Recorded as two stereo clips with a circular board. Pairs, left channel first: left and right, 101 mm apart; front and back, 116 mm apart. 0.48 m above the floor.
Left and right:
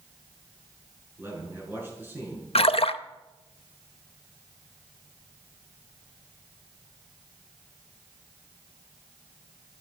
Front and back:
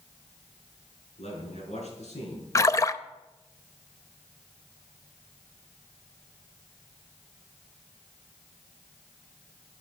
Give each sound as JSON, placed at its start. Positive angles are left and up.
{"t": 1.2, "sound": "a man speaking", "azimuth_deg": -20, "distance_m": 6.5}
{"t": 2.5, "sound": "a splash", "azimuth_deg": 65, "distance_m": 0.6}